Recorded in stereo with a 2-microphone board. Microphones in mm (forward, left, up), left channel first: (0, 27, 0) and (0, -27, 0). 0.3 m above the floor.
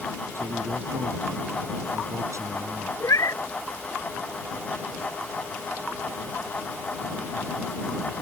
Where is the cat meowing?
75° left (ahead or behind).